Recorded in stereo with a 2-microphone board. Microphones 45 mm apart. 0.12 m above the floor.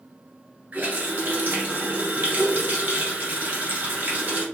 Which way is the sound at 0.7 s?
45° right (ahead or behind).